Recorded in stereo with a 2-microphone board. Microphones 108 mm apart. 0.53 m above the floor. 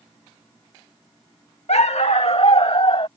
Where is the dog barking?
80° left; by 3.1 s 55° left (ahead or behind).